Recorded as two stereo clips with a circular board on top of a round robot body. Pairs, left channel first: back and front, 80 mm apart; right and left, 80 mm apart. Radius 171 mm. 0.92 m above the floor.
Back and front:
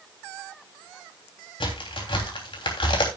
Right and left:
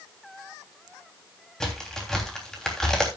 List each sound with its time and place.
1.6 s a crack: 175° right, 3 m